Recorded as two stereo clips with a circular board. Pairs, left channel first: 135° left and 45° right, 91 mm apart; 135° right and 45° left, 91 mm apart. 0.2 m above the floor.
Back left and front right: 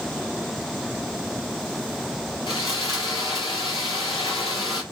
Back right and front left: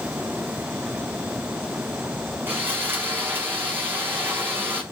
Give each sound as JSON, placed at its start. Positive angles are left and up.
{"t": 2.5, "sound": "sawing", "azimuth_deg": 110, "distance_m": 4.5}